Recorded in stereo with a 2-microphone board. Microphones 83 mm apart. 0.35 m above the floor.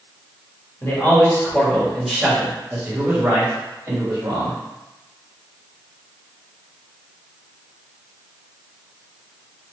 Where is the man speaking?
35° left (ahead or behind), 1.4 m; by 4.6 s 50° right (ahead or behind), 1.9 m.